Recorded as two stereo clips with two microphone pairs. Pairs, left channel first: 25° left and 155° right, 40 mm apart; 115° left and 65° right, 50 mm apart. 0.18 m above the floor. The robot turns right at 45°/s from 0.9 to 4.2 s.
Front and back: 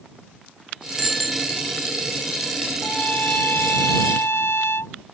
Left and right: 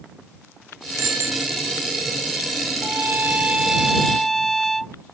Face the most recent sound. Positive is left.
turn(degrees=25)